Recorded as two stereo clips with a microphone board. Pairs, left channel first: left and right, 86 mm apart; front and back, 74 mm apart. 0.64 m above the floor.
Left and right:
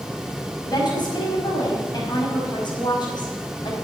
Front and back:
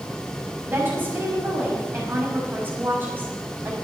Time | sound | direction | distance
0.7 | a woman speaking | 120° left | 5 m